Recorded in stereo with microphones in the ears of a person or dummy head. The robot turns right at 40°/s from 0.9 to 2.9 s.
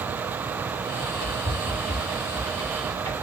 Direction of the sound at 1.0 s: 70° left (ahead or behind).